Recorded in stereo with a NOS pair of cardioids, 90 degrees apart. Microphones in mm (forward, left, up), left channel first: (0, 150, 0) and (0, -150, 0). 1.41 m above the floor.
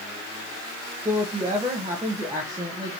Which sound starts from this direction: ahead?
A woman speaking, at 1.1 s.